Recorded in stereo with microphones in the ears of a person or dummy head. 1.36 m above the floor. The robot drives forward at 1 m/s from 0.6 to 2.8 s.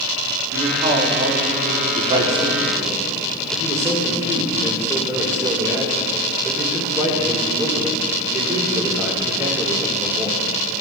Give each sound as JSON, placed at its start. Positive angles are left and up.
{"t": 0.5, "sound": "a man speaking", "side_deg": -40, "distance_m": 1.4}
{"t": 1.9, "sound": "a man speaking", "side_deg": -30, "distance_m": 1.1}